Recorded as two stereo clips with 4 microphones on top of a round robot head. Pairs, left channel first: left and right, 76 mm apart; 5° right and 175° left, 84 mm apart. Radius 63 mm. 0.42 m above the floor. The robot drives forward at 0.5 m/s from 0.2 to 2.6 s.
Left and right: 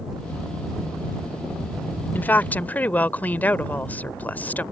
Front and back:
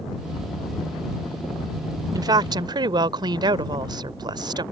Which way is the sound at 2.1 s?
150° left.